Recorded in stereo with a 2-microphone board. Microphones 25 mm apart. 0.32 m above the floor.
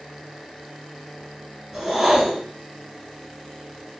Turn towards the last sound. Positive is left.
turn(degrees=-5)  # may be behind; listen again after turning